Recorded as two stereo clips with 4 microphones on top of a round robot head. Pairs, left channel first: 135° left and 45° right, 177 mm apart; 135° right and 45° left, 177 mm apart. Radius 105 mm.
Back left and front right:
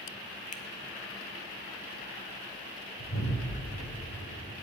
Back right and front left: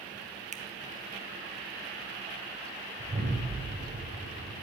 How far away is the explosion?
About 6 m.